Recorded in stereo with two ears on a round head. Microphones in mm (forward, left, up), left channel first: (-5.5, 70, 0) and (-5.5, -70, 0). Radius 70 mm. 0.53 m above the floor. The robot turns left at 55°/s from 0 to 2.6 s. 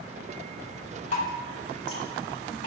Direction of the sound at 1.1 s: 50° left (ahead or behind).